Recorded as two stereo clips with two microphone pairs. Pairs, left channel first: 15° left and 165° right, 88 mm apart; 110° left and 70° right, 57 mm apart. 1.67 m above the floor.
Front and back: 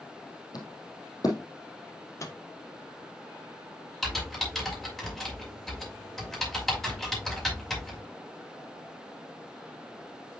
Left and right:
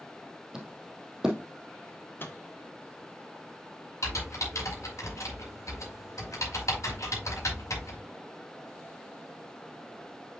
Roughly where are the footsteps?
Ahead.